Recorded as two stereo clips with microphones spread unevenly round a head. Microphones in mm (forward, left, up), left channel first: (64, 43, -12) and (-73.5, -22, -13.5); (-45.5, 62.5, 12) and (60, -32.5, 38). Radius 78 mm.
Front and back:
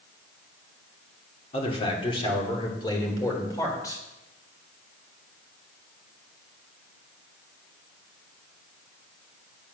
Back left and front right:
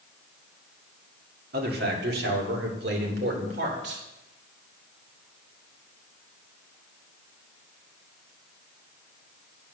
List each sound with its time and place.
1.5 s a man speaking: 30° right, 2.5 m; by 4.0 s 45° right, 4 m